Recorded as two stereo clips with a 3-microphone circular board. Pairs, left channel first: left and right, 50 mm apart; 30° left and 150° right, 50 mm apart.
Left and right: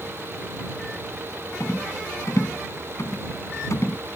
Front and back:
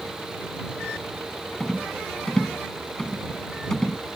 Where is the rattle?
110° left.